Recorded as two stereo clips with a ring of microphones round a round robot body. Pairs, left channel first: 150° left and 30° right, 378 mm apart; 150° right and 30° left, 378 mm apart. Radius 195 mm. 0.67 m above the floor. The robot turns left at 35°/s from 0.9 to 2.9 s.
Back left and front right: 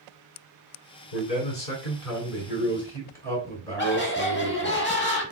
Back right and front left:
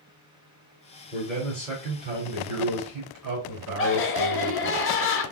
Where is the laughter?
175° right, 1.4 m.